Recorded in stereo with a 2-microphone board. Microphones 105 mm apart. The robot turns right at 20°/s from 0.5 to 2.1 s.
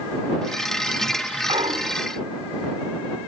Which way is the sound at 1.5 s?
60° right (ahead or behind).